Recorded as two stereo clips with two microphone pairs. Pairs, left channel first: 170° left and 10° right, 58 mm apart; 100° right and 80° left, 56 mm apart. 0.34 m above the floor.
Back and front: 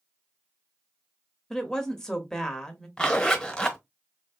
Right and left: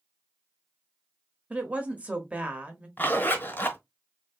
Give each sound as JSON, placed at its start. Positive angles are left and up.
{"t": 1.5, "sound": "a woman speaking", "azimuth_deg": 105, "distance_m": 0.9}
{"t": 3.0, "sound": "a zipper", "azimuth_deg": -120, "distance_m": 0.9}